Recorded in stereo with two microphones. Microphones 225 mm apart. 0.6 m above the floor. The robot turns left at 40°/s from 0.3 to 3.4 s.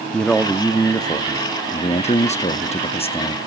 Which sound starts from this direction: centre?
A man speaking, at 0.1 s.